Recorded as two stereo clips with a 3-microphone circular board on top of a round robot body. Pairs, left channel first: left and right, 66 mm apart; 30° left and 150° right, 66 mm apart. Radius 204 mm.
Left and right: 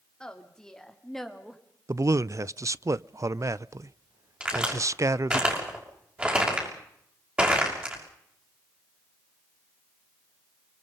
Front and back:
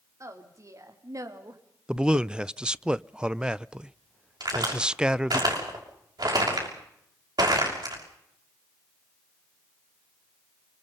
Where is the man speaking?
75° right, 0.6 m.